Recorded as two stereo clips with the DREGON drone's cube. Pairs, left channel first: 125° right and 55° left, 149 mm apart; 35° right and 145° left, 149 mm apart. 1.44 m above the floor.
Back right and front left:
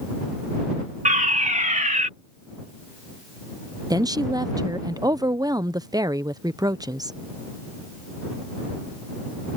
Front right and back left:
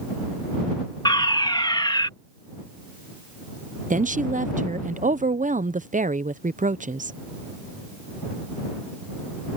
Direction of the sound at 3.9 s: 120° left.